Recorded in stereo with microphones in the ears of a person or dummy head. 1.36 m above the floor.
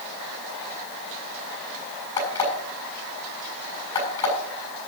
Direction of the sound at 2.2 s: 30° left (ahead or behind).